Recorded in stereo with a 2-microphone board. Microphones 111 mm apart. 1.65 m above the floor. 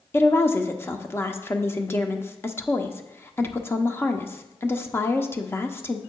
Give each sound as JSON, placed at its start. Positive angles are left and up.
{"t": 0.1, "sound": "a woman speaking", "side_deg": 20, "distance_m": 0.7}